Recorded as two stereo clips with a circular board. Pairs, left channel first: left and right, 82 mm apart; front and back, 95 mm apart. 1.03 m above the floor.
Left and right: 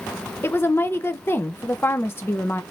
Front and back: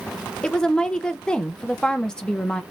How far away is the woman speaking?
About 0.6 m.